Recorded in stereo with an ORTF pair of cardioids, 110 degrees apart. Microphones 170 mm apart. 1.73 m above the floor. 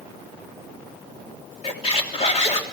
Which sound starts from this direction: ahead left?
A squeak, at 1.6 s.